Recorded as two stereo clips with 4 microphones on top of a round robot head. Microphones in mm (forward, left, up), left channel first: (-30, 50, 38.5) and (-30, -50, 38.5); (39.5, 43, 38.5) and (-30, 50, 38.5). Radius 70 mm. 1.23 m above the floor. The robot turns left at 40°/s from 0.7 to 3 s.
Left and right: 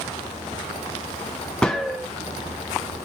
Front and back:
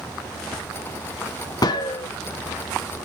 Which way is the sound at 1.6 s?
10° left.